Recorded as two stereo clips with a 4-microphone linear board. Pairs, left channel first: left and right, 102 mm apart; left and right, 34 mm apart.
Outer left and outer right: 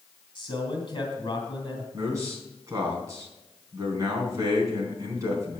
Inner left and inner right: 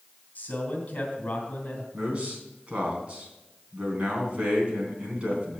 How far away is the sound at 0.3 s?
About 3 m.